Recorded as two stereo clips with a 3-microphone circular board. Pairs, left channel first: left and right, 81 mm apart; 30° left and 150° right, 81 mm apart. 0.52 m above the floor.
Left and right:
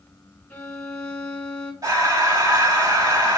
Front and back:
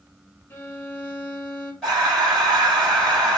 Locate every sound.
0.5 s a violin: 45° left, 1.1 m
1.8 s breathing: 60° right, 2.5 m